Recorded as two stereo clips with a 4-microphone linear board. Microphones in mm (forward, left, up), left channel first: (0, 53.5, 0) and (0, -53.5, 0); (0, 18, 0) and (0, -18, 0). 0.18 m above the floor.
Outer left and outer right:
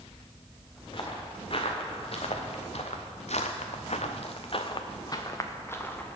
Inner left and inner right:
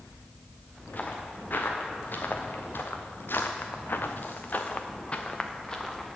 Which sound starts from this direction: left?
Footsteps, at 0.9 s.